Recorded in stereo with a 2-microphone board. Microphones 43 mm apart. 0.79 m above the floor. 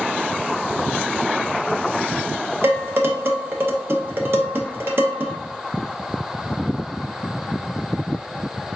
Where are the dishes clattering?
60° right (ahead or behind), 0.6 m.